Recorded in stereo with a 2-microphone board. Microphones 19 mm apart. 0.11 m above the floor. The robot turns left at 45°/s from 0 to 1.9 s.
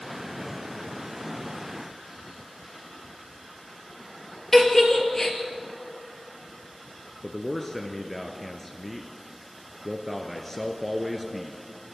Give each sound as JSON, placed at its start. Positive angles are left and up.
{"t": 4.5, "sound": "a giggle", "side_deg": 20, "distance_m": 2.5}
{"t": 7.2, "sound": "a man speaking", "side_deg": 20, "distance_m": 1.5}